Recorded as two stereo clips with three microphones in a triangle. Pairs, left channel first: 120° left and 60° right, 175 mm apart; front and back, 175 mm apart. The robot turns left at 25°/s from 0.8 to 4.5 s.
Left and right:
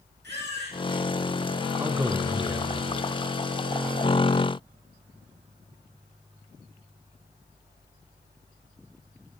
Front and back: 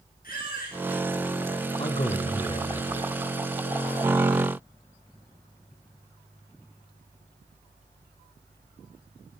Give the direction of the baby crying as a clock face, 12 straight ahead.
1 o'clock.